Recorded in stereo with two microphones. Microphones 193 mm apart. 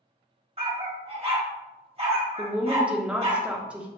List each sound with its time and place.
0.6 s a dog barking: 35° right (ahead or behind), 1.1 m
2.4 s a woman speaking: 5° right (ahead or behind), 0.7 m